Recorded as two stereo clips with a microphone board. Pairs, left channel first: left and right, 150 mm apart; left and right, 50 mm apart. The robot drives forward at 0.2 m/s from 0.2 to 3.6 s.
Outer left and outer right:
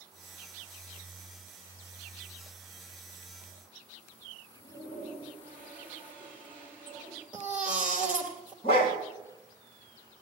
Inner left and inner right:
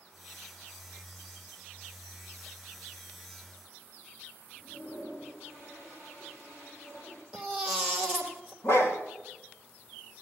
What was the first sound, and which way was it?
A toilet flushing, 10° left (ahead or behind).